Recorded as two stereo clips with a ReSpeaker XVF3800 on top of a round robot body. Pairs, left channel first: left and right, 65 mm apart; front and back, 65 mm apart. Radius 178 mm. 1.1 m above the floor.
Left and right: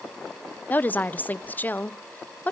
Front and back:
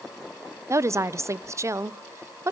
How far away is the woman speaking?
About 1.0 m.